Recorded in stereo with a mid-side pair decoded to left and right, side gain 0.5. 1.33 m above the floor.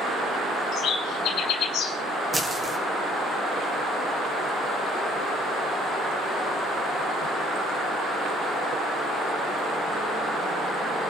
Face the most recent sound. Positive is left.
turn(degrees=-15)